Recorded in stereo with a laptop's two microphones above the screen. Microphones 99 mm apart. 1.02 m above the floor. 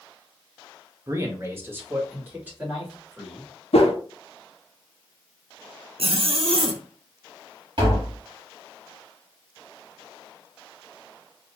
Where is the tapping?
55° right (ahead or behind), 2 m.